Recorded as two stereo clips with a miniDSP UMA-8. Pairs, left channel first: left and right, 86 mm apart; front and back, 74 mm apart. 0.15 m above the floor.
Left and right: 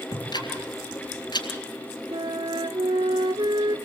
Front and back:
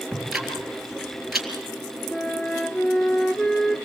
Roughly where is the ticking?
Left.